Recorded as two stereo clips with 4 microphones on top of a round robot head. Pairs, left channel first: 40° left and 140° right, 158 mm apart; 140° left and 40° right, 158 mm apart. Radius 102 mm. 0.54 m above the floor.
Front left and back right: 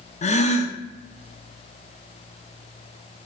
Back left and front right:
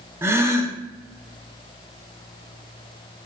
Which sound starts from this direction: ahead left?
A gasp, at 0.2 s.